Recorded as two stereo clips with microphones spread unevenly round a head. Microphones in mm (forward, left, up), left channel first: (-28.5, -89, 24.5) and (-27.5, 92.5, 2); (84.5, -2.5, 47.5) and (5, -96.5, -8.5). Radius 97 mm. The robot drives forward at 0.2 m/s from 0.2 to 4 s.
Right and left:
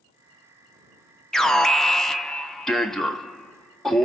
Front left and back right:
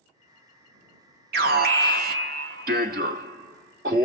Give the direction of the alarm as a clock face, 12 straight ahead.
6 o'clock.